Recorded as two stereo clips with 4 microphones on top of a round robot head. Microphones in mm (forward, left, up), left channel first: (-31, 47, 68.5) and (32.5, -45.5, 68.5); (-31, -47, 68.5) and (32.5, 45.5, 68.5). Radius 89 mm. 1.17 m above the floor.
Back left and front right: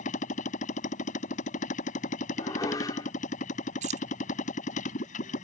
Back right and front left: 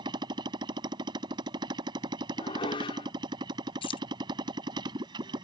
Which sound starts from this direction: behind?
Dishes clattering, at 2.4 s.